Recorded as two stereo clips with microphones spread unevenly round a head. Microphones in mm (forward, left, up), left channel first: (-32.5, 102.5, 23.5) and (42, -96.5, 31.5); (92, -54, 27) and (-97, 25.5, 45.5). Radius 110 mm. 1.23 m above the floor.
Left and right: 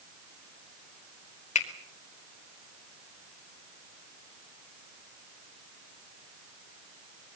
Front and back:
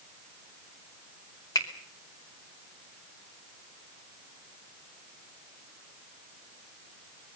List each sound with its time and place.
1.6 s a finger snap: 50° left, 2.5 m